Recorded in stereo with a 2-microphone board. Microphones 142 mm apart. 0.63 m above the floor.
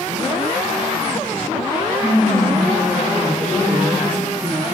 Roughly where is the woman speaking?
Centre.